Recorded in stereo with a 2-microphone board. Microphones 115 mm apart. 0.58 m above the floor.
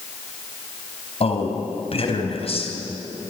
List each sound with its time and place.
1.2 s a man speaking: 55° left (ahead or behind), 3.5 m